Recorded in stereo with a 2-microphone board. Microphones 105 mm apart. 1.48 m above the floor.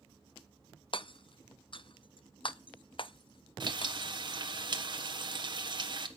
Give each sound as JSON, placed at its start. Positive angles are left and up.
{"t": 0.9, "sound": "hammering", "side_deg": 55, "distance_m": 0.6}
{"t": 3.6, "sound": "frying", "side_deg": -50, "distance_m": 1.4}